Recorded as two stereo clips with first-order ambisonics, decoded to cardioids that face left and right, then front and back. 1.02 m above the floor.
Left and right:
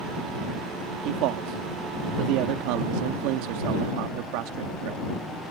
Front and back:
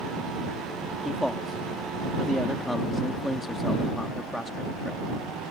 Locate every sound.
1.1 s a man speaking: 90° right